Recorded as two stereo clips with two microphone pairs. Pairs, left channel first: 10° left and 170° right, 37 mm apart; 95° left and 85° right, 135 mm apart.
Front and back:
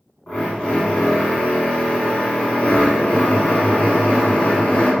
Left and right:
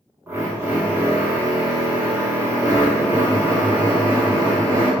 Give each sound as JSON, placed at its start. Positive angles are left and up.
{"t": 0.3, "sound": "a drill", "azimuth_deg": -30, "distance_m": 1.0}